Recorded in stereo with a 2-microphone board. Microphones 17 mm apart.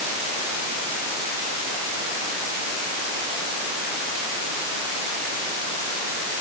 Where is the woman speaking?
I don't hear a woman speaking.